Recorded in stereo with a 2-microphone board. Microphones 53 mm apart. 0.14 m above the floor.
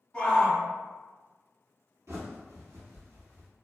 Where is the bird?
70° right (ahead or behind), 1.1 m.